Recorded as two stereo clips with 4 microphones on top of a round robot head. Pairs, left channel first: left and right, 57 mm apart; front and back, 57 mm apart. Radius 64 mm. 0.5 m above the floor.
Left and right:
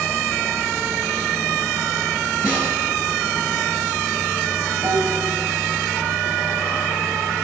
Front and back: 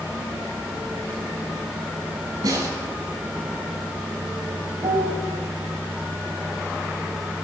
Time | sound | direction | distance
2.4 | a snare drum | 150° right | 8.5 m
4.8 | a piano | 150° right | 5.5 m